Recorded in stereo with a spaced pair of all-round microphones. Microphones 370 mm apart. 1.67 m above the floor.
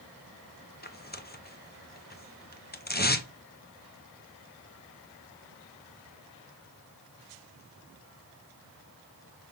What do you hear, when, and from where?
0.8 s tearing paper: 25° left (ahead or behind), 0.7 m